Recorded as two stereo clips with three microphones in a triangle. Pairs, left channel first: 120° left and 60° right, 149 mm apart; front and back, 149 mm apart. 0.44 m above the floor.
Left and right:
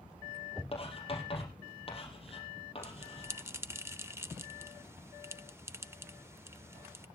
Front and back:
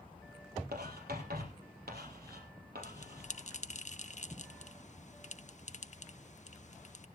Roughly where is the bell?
Ahead.